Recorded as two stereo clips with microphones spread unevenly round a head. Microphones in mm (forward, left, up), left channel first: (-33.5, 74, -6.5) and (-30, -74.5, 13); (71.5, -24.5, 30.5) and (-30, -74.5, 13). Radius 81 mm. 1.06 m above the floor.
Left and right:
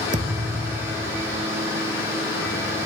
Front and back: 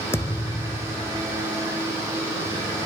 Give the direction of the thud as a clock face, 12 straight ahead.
1 o'clock.